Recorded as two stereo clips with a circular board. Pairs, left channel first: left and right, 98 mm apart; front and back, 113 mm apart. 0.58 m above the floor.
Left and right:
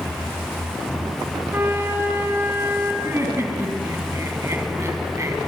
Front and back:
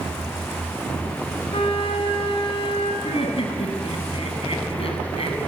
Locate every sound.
1.5 s a flute: 25° right, 3 m
3.0 s laughter: 30° right, 4 m